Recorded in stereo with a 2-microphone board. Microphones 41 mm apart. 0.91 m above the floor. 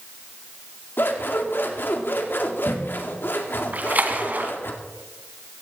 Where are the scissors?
65° left (ahead or behind), 2 m.